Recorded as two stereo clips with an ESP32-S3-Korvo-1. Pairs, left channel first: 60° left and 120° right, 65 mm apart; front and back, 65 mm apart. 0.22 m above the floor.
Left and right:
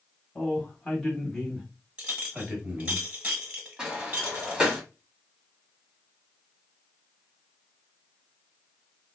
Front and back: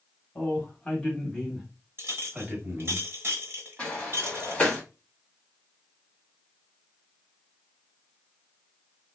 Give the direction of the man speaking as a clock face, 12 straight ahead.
12 o'clock.